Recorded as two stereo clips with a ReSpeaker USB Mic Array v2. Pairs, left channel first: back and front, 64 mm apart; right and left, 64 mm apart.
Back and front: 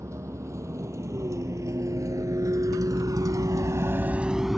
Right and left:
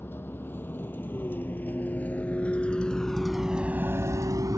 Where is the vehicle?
35° right; by 4.6 s 90° left.